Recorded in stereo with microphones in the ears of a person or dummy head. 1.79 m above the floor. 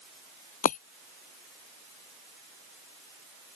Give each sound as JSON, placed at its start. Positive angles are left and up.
{"t": 0.6, "sound": "breaking glass", "side_deg": 50}